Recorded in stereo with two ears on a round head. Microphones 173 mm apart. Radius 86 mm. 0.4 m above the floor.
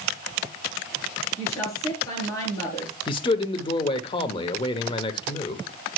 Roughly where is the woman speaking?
Centre.